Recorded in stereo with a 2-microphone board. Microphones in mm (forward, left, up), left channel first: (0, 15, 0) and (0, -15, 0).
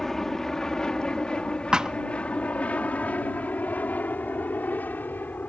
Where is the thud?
25° right (ahead or behind).